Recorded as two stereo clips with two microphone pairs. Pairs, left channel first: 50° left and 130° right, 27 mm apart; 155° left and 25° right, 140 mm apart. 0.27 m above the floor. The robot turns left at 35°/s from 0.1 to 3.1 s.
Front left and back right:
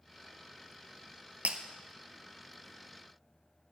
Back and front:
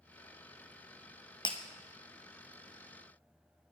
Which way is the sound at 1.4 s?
150° right.